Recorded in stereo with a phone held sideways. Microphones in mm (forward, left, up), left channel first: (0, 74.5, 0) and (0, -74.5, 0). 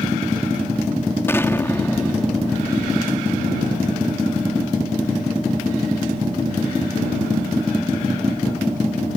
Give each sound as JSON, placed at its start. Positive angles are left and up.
{"t": 1.3, "sound": "an explosion", "side_deg": 15}